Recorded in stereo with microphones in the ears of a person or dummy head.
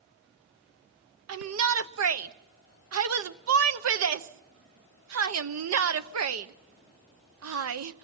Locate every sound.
1.3 s a shout: 80° right, 1.0 m